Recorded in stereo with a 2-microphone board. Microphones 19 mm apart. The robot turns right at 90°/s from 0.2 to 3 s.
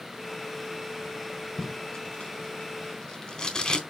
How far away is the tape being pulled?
About 3.5 m.